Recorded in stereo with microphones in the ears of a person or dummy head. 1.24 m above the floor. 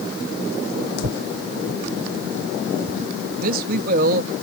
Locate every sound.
1.0 s tearing paper: 60° right (ahead or behind)
3.4 s a man speaking: 60° right (ahead or behind)